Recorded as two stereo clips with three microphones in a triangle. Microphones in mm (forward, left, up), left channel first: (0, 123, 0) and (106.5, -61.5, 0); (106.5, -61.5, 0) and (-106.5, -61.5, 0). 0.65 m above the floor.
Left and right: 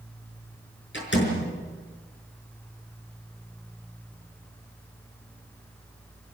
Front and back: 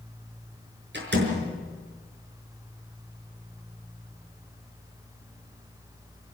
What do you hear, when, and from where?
0.9 s a door slam: 145° left, 5.5 m